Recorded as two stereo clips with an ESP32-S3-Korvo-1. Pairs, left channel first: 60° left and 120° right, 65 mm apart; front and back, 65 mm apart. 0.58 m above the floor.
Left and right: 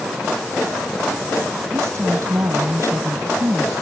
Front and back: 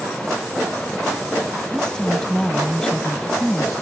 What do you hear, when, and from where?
1.7 s a woman speaking: 80° right